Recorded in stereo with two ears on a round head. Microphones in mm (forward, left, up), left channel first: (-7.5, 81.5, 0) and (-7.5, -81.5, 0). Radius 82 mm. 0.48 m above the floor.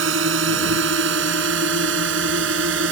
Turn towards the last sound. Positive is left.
turn(degrees=-65)  # may be behind; listen again after turning